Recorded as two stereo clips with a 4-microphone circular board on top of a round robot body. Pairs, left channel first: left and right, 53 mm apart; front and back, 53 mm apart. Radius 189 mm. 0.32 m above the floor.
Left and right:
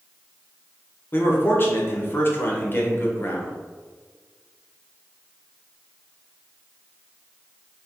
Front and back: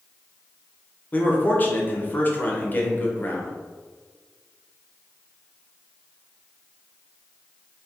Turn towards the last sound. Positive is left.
turn(degrees=50)